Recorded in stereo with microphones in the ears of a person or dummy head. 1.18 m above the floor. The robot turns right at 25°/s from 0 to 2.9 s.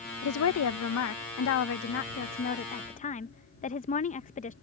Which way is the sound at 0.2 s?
80° left.